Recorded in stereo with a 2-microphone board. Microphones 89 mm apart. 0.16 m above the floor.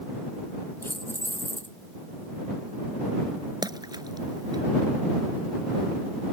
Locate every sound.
0.8 s keys jangling: 25° left (ahead or behind)
3.6 s a splash: 50° right (ahead or behind)